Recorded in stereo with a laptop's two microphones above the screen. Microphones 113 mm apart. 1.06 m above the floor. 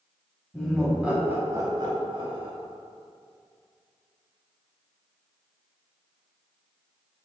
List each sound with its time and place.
0.5 s laughter: 5° left (ahead or behind), 1.0 m; by 2.5 s 55° right (ahead or behind), 1.1 m